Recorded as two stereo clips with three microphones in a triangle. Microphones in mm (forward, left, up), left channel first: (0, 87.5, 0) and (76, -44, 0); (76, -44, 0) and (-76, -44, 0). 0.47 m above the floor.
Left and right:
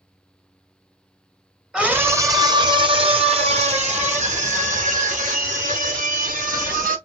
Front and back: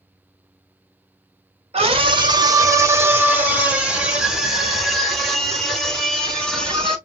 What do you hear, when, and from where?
1.7 s a scream: 145° right, 1.1 m; by 7.0 s 85° right, 4 m